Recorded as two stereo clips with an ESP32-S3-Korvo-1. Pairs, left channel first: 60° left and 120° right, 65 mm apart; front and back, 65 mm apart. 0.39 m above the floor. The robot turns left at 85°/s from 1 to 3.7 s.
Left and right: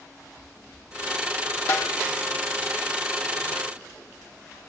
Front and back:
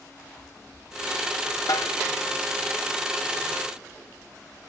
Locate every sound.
1.7 s a snare drum: 10° left, 1.4 m; by 2.0 s 15° right, 1.4 m